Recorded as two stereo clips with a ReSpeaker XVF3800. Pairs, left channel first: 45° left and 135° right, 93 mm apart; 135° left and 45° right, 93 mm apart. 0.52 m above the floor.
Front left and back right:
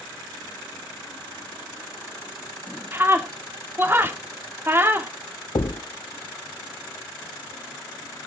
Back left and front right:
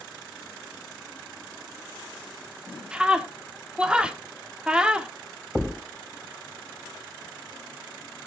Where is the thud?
45° left, 0.7 m.